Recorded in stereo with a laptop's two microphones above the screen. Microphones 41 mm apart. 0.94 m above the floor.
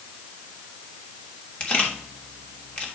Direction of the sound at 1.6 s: 30° left (ahead or behind).